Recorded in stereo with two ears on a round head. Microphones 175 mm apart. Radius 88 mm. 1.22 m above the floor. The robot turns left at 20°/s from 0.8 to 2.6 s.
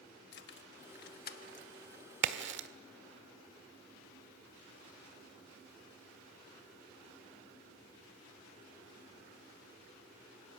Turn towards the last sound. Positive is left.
turn(degrees=-60)  # may be behind; listen again after turning